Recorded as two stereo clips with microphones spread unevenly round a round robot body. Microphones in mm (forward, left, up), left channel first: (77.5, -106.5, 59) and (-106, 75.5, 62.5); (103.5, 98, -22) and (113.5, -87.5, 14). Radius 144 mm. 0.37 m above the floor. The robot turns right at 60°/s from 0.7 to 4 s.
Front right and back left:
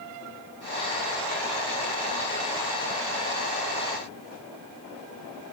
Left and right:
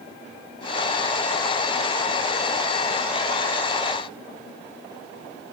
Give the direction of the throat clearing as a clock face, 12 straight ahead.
I don't hear throat clearing.